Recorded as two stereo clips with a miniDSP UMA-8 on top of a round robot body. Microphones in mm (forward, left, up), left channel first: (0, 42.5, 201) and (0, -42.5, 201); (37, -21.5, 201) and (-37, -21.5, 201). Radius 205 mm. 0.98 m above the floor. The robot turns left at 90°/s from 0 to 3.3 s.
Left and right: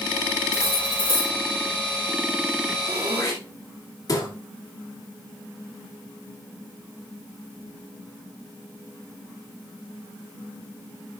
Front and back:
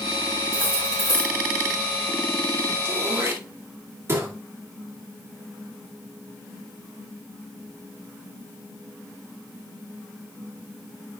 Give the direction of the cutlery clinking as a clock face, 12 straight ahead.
7 o'clock.